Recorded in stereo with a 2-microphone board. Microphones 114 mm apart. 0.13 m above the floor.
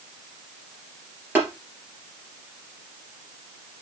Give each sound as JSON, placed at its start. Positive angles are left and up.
{"t": 1.4, "sound": "tapping", "side_deg": -20, "distance_m": 3.0}